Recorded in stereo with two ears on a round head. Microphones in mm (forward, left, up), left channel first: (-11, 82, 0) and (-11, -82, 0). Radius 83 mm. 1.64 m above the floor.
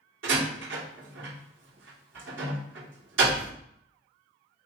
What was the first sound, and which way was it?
A door slam, 80° right.